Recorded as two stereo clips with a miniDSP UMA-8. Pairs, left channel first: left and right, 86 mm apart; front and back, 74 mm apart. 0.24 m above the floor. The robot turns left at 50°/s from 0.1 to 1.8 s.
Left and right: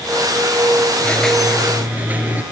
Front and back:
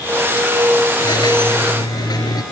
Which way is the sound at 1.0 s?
20° left.